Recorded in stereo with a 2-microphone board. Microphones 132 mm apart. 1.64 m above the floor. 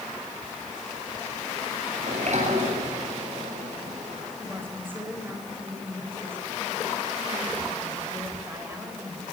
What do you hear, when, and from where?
2.0 s a sliding door: 60° right (ahead or behind), 8 m
4.4 s a woman speaking: 15° right (ahead or behind), 7.5 m